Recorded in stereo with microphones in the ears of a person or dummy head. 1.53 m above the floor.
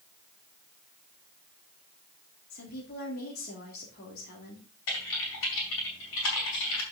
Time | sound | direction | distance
2.5 | a woman speaking | 55° left (ahead or behind) | 3 m
4.9 | typing on a keyboard | 75° left (ahead or behind) | 5 m